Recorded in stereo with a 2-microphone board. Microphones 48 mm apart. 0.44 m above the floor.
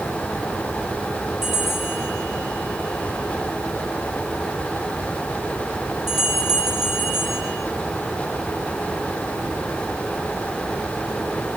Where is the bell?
Centre (ahead or behind), 6.5 m.